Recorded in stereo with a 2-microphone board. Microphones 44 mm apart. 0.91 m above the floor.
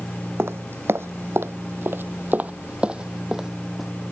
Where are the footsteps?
65° right (ahead or behind); by 3.9 s 5° right (ahead or behind).